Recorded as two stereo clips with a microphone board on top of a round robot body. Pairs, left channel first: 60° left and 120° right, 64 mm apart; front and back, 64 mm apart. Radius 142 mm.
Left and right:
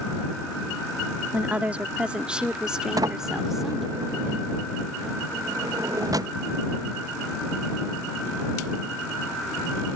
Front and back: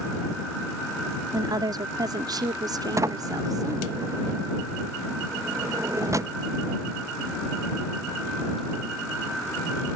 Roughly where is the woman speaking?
Behind.